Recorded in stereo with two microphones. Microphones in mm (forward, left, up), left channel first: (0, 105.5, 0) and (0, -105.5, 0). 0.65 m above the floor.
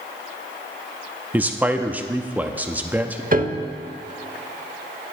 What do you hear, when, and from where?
1.3 s a man speaking: 10° right (ahead or behind), 0.7 m
3.3 s a piano: 45° right (ahead or behind), 0.7 m